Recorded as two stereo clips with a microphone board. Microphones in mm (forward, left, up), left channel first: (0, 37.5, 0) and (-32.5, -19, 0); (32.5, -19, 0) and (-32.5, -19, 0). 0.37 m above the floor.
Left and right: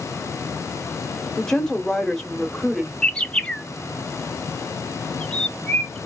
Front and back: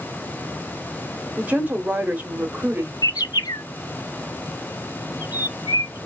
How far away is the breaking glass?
No breaking glass in this recording.